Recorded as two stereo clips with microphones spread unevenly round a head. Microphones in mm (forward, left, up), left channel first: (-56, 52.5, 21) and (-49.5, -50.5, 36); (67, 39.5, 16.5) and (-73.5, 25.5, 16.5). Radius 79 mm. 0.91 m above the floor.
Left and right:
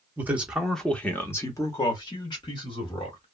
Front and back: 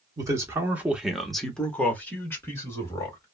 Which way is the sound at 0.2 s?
150° right.